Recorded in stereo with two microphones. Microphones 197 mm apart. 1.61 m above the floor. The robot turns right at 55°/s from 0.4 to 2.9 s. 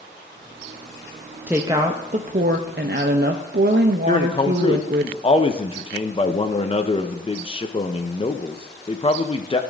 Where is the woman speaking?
170° right, 0.6 m; by 5.1 s 95° right, 0.6 m.